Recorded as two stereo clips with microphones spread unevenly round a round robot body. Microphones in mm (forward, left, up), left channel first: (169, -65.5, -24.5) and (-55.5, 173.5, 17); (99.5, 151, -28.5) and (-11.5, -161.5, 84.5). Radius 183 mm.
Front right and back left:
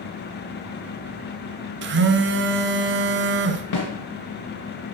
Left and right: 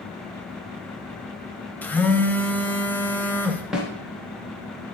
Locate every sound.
1.8 s a phone buzzing: 110° left, 0.8 m
3.7 s a snare drum: 20° right, 2.5 m